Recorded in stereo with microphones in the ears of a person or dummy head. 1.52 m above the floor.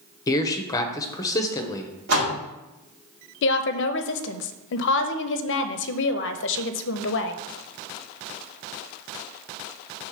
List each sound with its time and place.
0.3 s a man speaking: 30° left (ahead or behind), 1.0 m
2.1 s a door slam: 55° right (ahead or behind), 1.3 m
3.4 s a woman speaking: 70° left (ahead or behind), 0.7 m